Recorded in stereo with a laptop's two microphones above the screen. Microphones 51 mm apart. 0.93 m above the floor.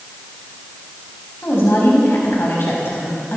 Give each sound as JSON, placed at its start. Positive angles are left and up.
{"t": 1.4, "sound": "a woman speaking", "side_deg": 55, "distance_m": 5.5}